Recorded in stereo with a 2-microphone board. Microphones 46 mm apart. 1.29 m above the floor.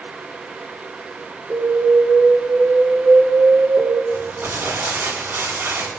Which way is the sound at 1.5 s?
45° right (ahead or behind).